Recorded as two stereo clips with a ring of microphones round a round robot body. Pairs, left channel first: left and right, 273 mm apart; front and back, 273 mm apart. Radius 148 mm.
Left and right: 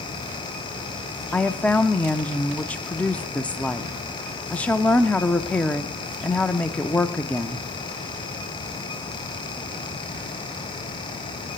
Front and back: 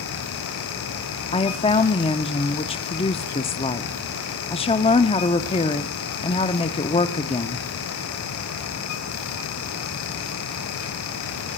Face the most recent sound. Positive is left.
turn(degrees=15)